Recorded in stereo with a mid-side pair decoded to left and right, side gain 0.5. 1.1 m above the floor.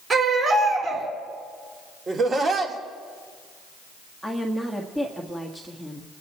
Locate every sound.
0.1 s a baby crying: 40° right, 5 m
2.1 s laughter: 40° right, 3 m
4.2 s a woman speaking: 5° right, 1.7 m